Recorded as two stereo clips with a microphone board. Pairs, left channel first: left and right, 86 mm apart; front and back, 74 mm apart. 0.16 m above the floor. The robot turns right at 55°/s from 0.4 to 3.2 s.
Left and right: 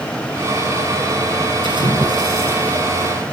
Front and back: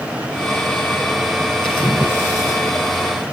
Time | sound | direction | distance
1.6 | a splash | 75° right | 4.5 m